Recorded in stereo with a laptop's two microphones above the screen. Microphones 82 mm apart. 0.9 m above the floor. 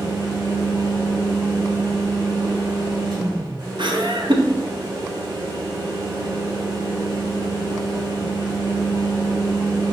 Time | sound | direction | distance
0.0 | a fan | 55° right (ahead or behind) | 2 m
3.8 | laughter | 70° right (ahead or behind) | 0.7 m